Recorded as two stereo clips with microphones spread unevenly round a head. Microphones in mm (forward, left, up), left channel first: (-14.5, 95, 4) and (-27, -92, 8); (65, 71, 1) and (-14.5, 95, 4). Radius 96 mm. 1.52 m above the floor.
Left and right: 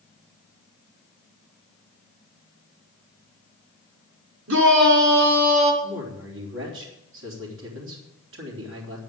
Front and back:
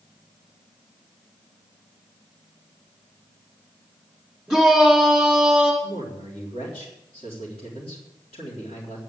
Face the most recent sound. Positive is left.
turn(degrees=-65)